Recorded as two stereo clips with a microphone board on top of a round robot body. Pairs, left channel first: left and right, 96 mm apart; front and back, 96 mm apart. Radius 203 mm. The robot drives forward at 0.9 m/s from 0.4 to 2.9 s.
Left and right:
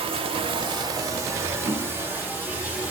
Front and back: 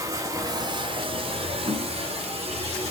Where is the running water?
120° right, 0.8 m; by 2.9 s 165° right, 2.5 m.